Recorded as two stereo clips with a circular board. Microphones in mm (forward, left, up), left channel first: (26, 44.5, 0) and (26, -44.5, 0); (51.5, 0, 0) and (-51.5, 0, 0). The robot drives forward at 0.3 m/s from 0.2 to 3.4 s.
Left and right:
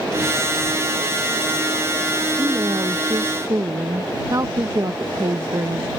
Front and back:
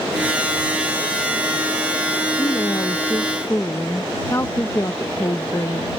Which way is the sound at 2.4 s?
40° right.